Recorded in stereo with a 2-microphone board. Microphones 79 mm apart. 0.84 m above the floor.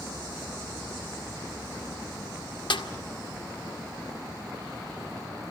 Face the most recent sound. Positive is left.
turn(degrees=75)  # may be behind; listen again after turning